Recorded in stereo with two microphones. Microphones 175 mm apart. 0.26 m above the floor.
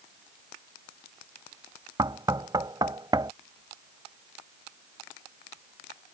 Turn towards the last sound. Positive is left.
turn(degrees=-25)  # may be behind; listen again after turning